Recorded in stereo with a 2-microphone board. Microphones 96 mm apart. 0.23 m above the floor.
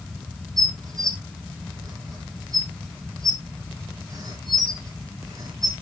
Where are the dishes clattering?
40° right (ahead or behind), 2 m.